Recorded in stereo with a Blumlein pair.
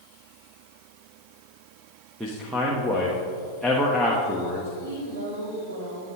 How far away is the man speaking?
About 1.1 m.